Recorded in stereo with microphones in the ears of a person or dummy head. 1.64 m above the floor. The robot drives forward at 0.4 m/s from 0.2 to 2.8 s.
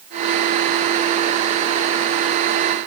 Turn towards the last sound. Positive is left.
No sound to turn to.